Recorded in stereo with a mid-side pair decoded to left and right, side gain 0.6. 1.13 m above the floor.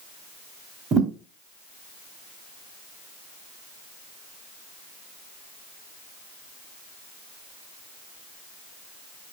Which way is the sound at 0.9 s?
40° right.